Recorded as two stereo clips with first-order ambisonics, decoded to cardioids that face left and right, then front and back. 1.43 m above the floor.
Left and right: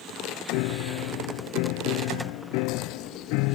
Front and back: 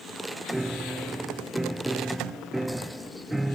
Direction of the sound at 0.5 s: 95° left.